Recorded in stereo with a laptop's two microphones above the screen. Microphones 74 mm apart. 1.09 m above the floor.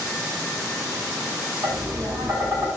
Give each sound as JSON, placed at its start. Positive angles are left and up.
{"t": 1.6, "sound": "tapping", "side_deg": -55, "distance_m": 1.4}